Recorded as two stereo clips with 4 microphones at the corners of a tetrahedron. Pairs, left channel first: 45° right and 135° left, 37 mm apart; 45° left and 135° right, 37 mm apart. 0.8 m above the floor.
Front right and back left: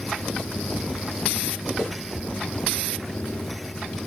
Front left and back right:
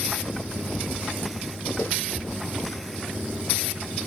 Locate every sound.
1.8 s footsteps: 25° left, 5.5 m